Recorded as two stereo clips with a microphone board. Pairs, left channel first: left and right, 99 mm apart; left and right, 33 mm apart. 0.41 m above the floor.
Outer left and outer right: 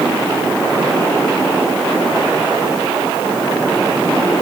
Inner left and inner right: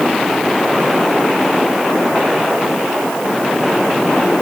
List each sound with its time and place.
Only background noise.